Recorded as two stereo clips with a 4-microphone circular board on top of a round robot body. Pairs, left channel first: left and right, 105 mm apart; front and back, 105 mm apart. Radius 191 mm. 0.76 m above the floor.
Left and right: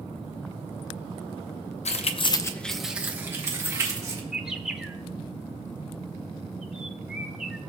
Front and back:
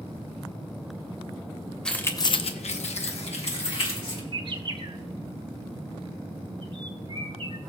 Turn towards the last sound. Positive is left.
turn(degrees=-175)